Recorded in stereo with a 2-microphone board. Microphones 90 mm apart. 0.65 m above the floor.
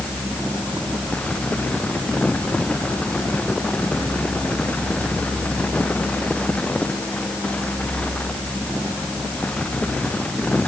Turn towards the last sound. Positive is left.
No sound to turn to.